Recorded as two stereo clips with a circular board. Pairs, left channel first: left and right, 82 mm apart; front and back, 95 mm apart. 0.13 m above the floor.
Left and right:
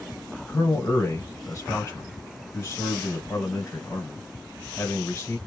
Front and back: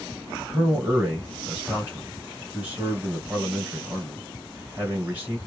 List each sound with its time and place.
0.5 s a man speaking: 115° left, 2.5 m